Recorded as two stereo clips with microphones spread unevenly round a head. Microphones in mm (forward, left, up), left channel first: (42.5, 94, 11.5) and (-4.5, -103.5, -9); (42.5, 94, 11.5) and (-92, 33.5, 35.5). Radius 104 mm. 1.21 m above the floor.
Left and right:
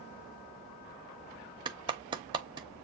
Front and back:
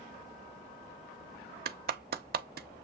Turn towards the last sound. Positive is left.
turn(degrees=-170)